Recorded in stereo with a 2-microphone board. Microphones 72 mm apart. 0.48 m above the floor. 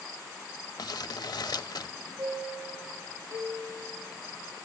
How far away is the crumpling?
About 0.7 m.